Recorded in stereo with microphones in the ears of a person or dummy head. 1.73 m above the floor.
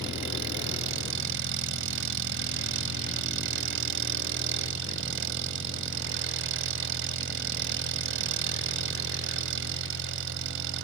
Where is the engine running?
65° right (ahead or behind).